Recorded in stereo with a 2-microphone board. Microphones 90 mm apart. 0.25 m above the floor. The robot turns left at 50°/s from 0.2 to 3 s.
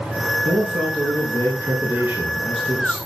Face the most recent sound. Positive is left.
turn(degrees=150)